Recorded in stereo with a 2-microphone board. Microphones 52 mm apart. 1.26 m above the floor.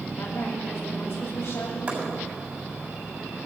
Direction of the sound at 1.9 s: 30° right (ahead or behind).